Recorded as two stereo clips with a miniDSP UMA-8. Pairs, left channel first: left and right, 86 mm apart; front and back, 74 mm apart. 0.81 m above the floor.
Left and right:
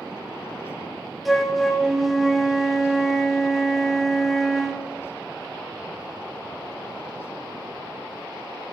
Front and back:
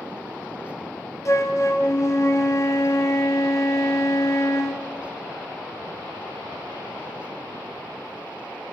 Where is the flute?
Straight ahead, 1.0 m.